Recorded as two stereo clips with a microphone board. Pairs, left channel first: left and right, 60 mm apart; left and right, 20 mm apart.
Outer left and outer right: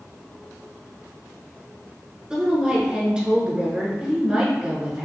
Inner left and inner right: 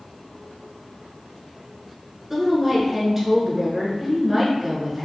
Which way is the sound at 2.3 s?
15° right (ahead or behind).